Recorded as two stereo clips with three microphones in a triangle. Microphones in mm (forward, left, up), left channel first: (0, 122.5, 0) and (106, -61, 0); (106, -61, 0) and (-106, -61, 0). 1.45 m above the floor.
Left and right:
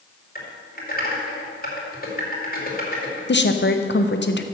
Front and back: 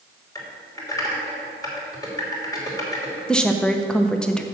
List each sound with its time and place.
0.3 s typing on a keyboard: 75° left, 2.5 m
3.3 s a woman speaking: 85° left, 0.7 m